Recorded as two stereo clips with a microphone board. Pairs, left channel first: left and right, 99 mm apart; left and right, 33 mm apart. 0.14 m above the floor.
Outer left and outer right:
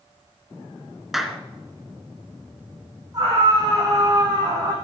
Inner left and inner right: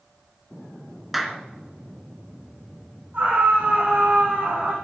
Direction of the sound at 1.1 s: Centre (ahead or behind).